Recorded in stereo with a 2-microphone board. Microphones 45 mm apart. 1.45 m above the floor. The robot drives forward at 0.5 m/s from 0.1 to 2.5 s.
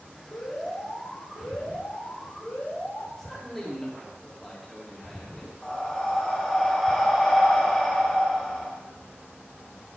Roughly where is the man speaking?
Centre.